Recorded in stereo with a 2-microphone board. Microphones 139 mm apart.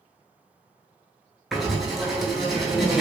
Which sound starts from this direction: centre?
Writing, at 1.5 s.